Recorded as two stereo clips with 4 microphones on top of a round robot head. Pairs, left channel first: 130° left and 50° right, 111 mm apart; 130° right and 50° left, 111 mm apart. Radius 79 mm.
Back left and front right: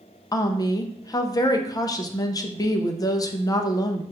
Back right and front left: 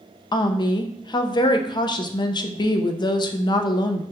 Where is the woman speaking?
175° right, 0.5 m.